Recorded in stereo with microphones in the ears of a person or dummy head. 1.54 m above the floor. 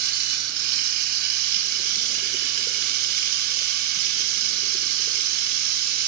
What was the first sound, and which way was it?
Running water, 55° right (ahead or behind).